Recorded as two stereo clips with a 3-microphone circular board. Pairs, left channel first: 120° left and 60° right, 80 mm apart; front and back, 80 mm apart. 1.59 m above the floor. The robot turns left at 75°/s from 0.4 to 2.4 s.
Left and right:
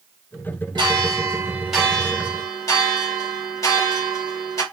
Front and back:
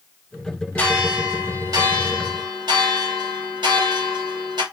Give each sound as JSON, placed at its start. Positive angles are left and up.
{"t": 0.8, "sound": "a bell", "azimuth_deg": -75, "distance_m": 2.5}